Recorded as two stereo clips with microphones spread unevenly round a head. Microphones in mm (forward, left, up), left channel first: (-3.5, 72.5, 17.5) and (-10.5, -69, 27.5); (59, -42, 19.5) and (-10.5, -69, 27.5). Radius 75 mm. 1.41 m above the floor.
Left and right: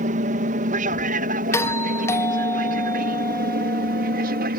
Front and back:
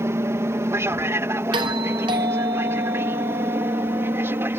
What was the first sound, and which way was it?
An aircraft, 115° right.